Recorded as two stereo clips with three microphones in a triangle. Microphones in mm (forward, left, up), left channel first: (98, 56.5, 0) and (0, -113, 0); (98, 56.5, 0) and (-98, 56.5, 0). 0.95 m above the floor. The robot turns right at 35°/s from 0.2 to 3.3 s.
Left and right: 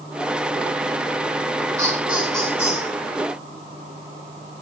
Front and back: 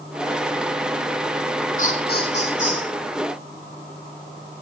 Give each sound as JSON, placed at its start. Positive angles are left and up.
{"t": 1.8, "sound": "laughter", "azimuth_deg": -45, "distance_m": 10.0}